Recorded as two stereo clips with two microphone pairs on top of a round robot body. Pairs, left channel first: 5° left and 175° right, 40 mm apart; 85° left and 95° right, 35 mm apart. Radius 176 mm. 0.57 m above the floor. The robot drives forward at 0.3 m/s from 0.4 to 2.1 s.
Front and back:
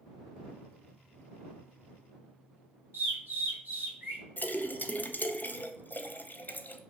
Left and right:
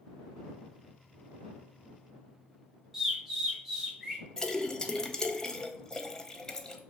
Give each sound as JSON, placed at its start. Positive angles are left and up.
{"t": 2.9, "sound": "a bird", "azimuth_deg": 175, "distance_m": 1.3}
{"t": 4.4, "sound": "a splash", "azimuth_deg": 15, "distance_m": 0.5}